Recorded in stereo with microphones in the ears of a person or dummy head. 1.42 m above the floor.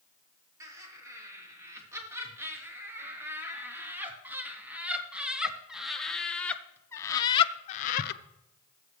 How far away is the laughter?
About 6 m.